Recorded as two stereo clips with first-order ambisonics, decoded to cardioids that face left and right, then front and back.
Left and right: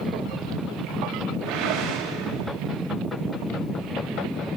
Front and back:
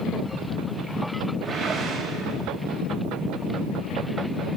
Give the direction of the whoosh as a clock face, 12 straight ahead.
4 o'clock.